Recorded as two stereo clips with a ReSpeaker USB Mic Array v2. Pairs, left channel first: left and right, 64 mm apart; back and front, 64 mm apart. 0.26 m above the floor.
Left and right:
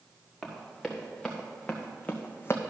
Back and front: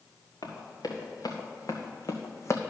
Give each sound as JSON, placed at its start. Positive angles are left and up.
{"t": 0.4, "sound": "running footsteps", "azimuth_deg": 180, "distance_m": 3.0}